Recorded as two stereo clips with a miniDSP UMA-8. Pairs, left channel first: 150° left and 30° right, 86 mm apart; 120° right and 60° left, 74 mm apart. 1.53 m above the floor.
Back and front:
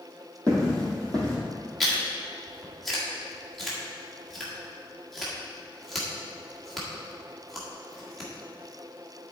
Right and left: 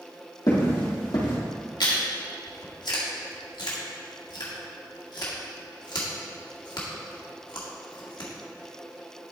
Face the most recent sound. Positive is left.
turn(degrees=-120)